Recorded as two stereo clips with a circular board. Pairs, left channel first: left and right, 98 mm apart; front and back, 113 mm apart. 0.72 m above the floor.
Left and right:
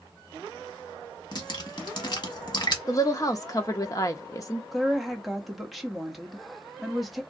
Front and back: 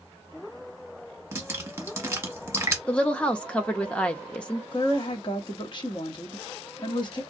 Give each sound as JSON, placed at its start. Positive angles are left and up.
{"t": 1.3, "sound": "dripping", "azimuth_deg": 115, "distance_m": 1.0}
{"t": 2.9, "sound": "a woman speaking", "azimuth_deg": 75, "distance_m": 0.6}
{"t": 4.7, "sound": "a woman speaking", "azimuth_deg": 0, "distance_m": 0.8}